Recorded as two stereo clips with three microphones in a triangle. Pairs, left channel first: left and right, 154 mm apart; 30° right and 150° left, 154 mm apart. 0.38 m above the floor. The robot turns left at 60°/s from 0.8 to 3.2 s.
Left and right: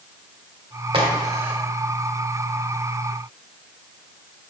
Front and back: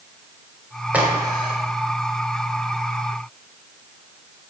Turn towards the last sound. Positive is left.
turn(degrees=90)